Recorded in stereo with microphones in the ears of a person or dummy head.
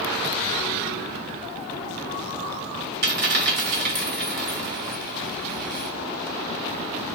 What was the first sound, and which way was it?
A dropped coin, 45° right (ahead or behind).